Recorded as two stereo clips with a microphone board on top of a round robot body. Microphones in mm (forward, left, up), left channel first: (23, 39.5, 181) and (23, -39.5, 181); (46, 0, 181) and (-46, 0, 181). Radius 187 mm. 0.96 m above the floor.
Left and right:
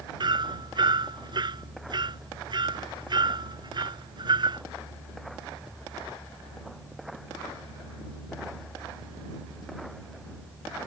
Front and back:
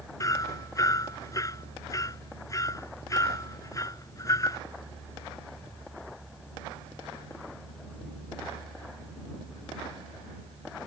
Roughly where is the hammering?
Ahead right.